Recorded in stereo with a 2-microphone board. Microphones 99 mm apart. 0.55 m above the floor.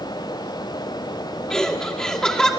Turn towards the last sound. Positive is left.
turn(degrees=5)  # may be behind; listen again after turning